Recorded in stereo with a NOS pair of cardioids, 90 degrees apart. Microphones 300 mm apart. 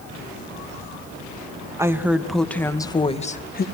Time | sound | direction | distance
1.8 | a woman speaking | 10° right | 2.5 m